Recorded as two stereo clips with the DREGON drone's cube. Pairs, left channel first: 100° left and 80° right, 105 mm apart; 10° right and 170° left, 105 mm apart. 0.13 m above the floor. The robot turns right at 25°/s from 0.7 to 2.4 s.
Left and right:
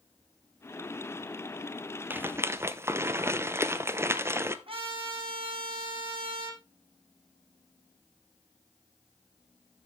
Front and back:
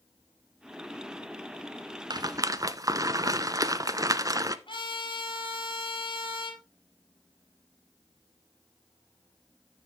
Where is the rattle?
145° right, 0.7 m; by 4.6 s 135° right, 0.7 m.